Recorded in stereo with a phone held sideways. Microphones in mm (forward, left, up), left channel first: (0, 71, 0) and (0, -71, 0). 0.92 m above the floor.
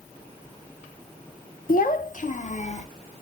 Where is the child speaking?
70° left (ahead or behind), 0.5 m; by 2.9 s 50° left (ahead or behind), 1.2 m.